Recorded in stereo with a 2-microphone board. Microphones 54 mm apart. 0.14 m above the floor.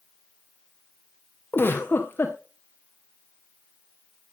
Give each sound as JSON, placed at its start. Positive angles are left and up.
{"t": 1.5, "sound": "a giggle", "side_deg": 40, "distance_m": 3.0}